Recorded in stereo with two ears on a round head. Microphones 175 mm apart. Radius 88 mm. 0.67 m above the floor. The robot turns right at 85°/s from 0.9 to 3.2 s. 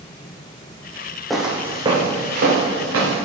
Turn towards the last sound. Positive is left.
turn(degrees=-60)  # may be behind; listen again after turning